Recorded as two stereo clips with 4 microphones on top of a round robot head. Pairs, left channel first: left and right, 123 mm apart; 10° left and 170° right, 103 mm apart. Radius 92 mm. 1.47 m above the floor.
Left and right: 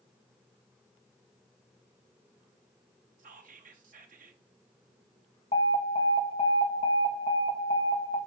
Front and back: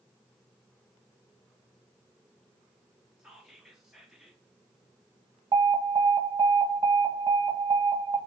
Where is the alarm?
145° left, 1.3 m.